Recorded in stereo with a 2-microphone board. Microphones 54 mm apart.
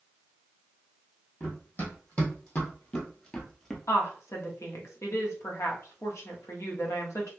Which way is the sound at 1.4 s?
35° left (ahead or behind).